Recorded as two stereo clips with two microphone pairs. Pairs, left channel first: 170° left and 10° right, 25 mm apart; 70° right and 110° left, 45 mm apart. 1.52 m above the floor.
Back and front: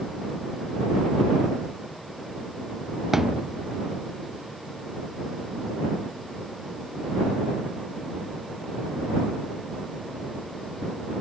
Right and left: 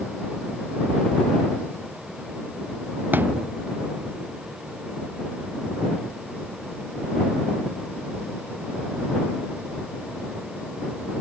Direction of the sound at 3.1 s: 65° left.